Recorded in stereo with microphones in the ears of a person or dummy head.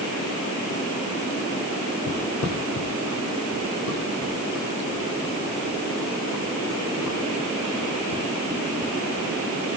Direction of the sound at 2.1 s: 55° left (ahead or behind).